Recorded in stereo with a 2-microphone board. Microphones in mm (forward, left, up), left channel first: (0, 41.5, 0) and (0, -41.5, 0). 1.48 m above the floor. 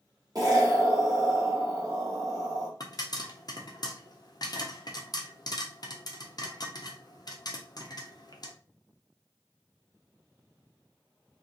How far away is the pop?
About 0.6 m.